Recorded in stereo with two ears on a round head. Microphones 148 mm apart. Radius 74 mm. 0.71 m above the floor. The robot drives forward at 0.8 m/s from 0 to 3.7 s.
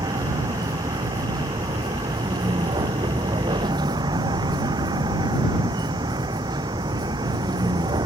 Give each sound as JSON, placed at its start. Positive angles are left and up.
{"t": 0.0, "sound": "a vehicle", "side_deg": -25}